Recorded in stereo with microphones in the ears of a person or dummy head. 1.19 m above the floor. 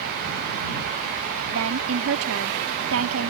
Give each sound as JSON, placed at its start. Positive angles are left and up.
{"t": 1.5, "sound": "a woman speaking", "side_deg": -85}